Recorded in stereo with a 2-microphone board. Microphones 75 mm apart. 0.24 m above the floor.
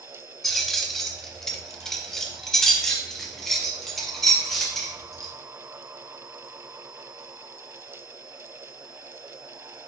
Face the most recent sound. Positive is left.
turn(degrees=5)  # may be behind; listen again after turning